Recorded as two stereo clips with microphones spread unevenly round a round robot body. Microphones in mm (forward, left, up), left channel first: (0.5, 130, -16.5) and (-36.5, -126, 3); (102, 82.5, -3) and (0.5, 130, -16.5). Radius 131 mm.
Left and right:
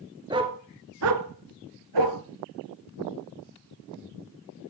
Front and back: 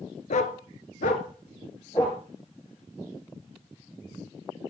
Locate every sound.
0.3 s a dog barking: 25° right, 1.5 m; by 2.2 s 105° right, 2 m